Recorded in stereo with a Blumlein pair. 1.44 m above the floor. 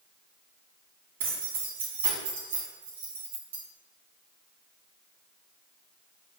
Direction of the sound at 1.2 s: 60° right.